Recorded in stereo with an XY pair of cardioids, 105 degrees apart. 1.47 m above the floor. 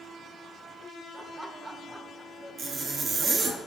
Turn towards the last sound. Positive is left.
turn(degrees=-50)